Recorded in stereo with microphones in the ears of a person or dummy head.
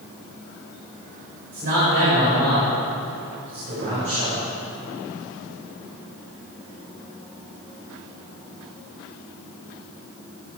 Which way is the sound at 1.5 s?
50° right (ahead or behind).